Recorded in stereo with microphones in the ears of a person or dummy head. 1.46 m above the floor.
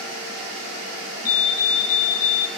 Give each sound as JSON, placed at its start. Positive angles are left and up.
{"t": 1.2, "sound": "a fire alarm", "side_deg": 45, "distance_m": 2.0}